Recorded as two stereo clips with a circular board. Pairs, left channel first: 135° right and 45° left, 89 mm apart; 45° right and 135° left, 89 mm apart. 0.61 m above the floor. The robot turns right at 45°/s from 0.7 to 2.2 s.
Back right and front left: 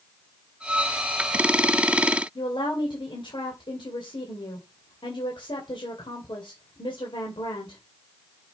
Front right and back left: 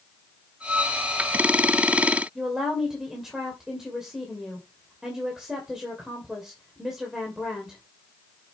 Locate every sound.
2.4 s a woman speaking: 140° right, 2.5 m